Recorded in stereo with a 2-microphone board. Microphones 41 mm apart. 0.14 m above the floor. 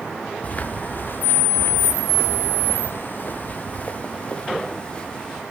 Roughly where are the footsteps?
Left.